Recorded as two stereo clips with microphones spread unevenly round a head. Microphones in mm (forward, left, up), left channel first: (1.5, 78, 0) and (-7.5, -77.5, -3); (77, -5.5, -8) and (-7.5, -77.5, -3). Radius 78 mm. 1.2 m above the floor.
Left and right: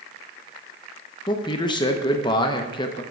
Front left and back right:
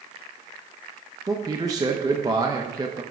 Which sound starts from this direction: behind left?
A man speaking, at 1.3 s.